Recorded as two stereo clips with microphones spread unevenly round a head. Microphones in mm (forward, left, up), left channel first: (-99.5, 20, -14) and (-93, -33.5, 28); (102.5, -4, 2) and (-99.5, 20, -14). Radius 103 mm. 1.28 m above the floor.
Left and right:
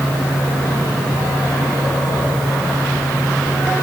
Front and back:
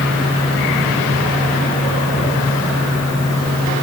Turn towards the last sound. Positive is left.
No sound to turn to.